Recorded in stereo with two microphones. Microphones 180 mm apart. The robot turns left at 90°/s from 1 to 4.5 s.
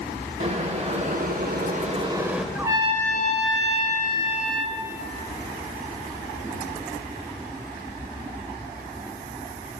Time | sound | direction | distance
0.4 | boiling | 50° right | 0.7 m
2.5 | a trumpet | 5° right | 0.6 m